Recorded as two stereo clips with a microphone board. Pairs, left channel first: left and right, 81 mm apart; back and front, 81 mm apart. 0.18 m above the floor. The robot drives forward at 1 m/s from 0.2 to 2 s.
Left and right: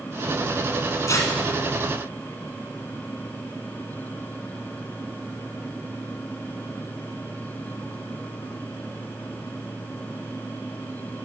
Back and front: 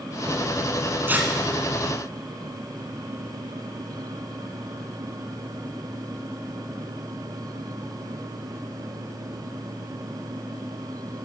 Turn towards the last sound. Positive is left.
turn(degrees=95)